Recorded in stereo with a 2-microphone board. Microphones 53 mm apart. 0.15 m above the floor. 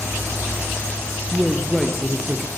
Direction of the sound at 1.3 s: Centre (ahead or behind).